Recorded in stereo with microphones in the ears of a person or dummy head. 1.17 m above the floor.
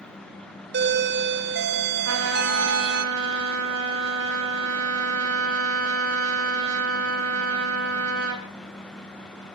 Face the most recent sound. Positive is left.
turn(degrees=-75)  # may be behind; listen again after turning